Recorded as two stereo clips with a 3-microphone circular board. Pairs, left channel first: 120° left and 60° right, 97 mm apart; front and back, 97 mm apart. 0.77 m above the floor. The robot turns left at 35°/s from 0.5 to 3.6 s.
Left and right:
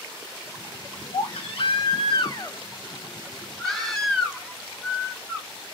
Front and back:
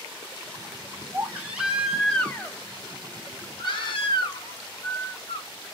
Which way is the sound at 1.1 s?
120° left.